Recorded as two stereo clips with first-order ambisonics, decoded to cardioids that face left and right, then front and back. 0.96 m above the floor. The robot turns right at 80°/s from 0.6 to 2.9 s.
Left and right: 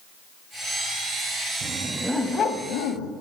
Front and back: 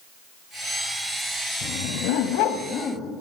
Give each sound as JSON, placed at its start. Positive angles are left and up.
{"t": 1.6, "sound": "a dog barking", "azimuth_deg": -40, "distance_m": 2.5}